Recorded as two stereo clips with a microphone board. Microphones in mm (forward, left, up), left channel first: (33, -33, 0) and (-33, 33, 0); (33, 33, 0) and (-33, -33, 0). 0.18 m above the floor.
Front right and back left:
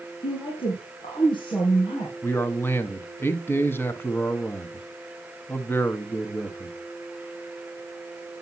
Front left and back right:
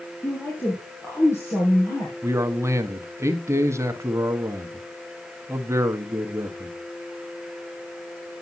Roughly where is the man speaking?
Right.